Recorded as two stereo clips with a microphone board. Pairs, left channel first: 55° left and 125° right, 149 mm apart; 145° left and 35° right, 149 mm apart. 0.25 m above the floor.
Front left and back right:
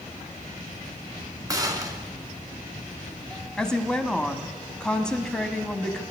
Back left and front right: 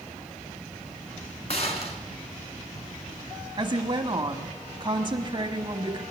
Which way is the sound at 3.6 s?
25° right.